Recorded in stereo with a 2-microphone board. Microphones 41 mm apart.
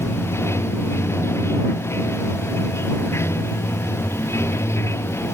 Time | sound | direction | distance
0.0 | running water | 85° left | ?